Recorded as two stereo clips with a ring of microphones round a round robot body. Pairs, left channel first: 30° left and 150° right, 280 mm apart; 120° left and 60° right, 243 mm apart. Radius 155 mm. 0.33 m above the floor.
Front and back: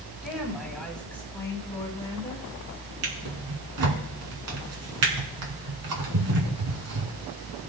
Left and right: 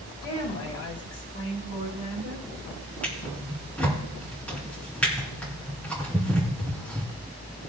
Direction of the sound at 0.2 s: 125° left.